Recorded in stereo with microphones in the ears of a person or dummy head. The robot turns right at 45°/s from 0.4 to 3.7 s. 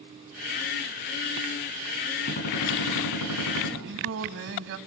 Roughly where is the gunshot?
Ahead left.